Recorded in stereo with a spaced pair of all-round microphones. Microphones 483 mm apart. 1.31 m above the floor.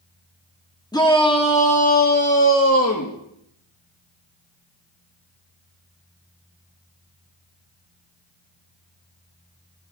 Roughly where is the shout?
Centre.